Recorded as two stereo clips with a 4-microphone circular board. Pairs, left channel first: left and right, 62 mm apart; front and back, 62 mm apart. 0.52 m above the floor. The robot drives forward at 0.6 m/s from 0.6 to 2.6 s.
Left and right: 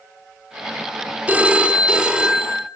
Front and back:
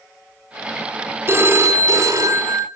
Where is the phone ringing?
145° right, 0.8 m; by 2.6 s 165° right, 1.4 m.